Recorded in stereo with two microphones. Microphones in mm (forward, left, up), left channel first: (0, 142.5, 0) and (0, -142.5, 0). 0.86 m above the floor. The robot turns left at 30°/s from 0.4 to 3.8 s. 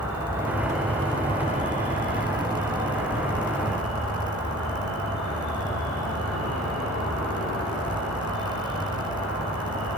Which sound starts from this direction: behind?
An insect, at 0.0 s.